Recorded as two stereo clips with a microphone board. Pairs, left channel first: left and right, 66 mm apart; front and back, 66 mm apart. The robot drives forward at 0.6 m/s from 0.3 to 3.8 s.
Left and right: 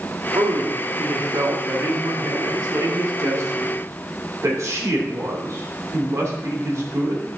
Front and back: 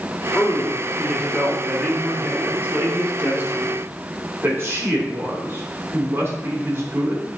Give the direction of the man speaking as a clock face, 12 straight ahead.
3 o'clock.